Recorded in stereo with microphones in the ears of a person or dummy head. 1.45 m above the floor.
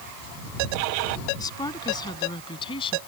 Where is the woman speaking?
20° left (ahead or behind); by 3.0 s 30° left (ahead or behind).